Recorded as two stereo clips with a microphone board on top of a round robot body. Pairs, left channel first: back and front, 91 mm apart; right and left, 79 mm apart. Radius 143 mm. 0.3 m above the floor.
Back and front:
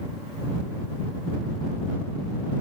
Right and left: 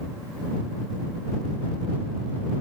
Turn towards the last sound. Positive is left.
No sound to turn to.